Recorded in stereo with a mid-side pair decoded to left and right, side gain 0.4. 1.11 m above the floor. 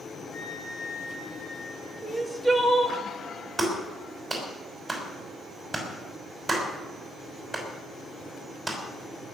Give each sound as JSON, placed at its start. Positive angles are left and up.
{"t": 0.3, "sound": "a flute", "azimuth_deg": 60, "distance_m": 4.0}
{"t": 2.0, "sound": "crying", "azimuth_deg": -15, "distance_m": 2.0}
{"t": 3.6, "sound": "a clap", "azimuth_deg": -15, "distance_m": 5.5}